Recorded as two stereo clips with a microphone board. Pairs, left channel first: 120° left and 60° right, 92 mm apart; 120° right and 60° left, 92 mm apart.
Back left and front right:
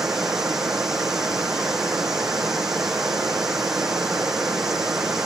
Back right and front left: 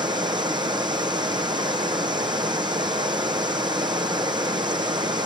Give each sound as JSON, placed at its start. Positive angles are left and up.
{"t": 0.0, "sound": "running water", "azimuth_deg": 25, "distance_m": 0.8}